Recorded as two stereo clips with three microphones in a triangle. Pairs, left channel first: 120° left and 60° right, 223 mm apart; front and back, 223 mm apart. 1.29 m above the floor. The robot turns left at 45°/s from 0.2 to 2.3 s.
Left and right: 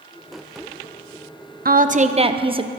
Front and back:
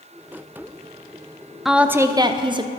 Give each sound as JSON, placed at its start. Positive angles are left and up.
{"t": 1.6, "sound": "a woman speaking", "azimuth_deg": -90, "distance_m": 0.6}